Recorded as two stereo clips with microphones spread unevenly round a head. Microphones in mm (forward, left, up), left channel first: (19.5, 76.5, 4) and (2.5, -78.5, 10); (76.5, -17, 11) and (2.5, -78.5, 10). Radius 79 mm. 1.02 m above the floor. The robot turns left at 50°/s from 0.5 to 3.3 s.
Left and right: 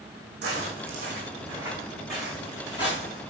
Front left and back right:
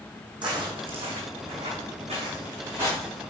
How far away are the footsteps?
About 3.5 m.